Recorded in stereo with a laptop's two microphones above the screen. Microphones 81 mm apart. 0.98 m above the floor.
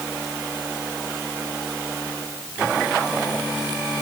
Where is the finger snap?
I don't hear a finger snap.